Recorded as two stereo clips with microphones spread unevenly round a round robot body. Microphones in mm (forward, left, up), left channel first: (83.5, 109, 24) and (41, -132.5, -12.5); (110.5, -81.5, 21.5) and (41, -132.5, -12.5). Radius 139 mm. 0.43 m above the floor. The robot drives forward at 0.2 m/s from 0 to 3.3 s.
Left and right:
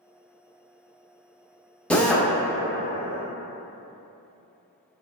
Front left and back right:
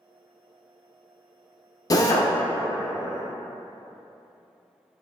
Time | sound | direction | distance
1.9 | a drill | 15° right | 0.5 m